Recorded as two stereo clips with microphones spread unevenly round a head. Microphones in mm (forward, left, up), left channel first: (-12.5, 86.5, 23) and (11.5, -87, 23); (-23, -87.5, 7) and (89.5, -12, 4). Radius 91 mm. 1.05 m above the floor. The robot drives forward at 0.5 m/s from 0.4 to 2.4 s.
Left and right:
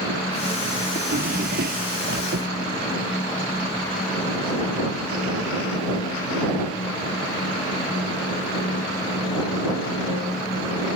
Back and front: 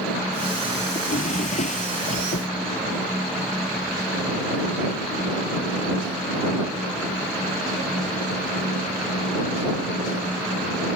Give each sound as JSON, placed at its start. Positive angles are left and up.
{"t": 0.9, "sound": "a drawer", "azimuth_deg": -120}